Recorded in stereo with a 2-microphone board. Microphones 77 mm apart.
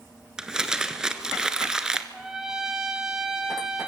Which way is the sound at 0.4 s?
10° right (ahead or behind).